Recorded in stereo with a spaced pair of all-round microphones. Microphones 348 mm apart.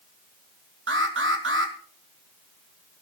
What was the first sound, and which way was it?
An alarm, 35° right (ahead or behind).